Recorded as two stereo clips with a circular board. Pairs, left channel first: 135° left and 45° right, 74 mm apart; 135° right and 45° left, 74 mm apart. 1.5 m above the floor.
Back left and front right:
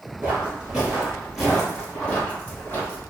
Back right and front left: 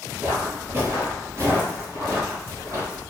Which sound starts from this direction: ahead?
Footsteps, at 0.2 s.